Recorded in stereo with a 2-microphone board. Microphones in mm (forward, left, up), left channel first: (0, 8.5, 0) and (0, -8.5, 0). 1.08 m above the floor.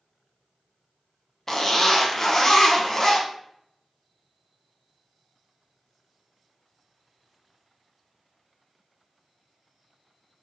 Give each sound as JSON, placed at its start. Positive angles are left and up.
{"t": 1.5, "sound": "a zipper", "side_deg": 35, "distance_m": 0.7}